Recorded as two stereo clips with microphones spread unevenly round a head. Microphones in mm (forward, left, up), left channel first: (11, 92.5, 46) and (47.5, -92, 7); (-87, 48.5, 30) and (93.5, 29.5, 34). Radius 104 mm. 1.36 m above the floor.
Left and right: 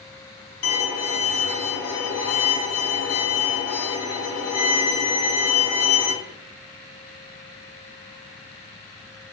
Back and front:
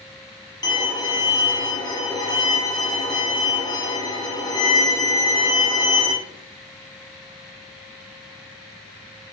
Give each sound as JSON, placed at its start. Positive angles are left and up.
{"t": 0.6, "sound": "a violin", "azimuth_deg": 105, "distance_m": 0.8}